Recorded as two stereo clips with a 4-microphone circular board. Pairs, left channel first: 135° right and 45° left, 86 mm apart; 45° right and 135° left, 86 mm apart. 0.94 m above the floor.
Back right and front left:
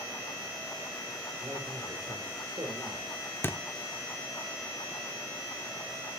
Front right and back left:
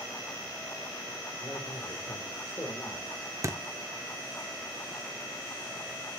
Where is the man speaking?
5° right, 3.5 m; by 3.1 s 25° left, 4 m.